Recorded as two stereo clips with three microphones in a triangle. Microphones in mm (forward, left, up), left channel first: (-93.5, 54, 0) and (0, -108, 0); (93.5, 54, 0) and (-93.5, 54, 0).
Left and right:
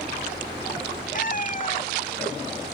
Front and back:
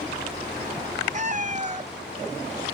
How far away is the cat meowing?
About 0.7 m.